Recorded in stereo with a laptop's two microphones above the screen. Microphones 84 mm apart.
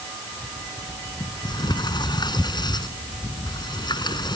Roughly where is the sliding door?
Left.